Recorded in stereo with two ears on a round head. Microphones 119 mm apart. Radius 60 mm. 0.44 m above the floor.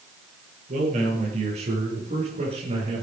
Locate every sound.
0.7 s a man speaking: 60° right (ahead or behind), 8.5 m; by 3.0 s 45° right (ahead or behind), 7.5 m